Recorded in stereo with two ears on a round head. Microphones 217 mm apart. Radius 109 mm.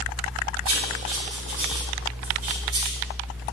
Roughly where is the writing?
Right.